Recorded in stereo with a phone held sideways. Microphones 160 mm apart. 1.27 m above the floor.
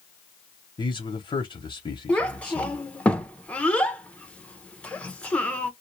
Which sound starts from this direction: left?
A man speaking, at 0.8 s.